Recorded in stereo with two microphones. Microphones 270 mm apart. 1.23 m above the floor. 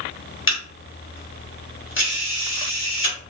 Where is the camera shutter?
45° left (ahead or behind), 1.3 m.